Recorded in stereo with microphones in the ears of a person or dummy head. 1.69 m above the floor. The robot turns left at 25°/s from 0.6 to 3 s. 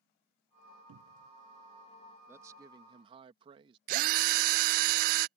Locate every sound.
0.9 s a cupboard door: 80° right; by 1.3 s 85° right
2.3 s a man speaking: 10° right (ahead or behind); by 3.8 s 25° right (ahead or behind)
3.9 s a drill: 45° right (ahead or behind)